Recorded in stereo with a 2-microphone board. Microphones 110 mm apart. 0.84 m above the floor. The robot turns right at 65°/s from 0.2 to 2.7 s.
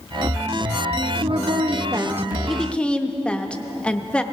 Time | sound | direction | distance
1.2 | a woman speaking | 85° right | 0.7 m